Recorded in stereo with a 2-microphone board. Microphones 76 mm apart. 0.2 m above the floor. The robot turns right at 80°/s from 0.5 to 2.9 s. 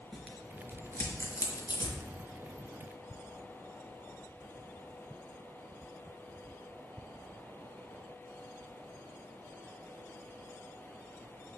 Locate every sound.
0.1 s tearing paper: 5° left (ahead or behind), 3.5 m; by 2.0 s 50° left (ahead or behind), 3.5 m